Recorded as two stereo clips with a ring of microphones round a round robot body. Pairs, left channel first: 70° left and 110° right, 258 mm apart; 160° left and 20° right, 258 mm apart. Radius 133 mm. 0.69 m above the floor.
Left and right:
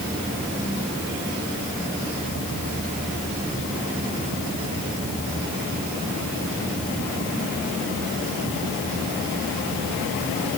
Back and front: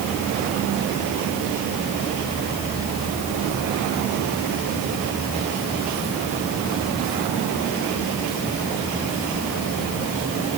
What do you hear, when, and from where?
Only background noise.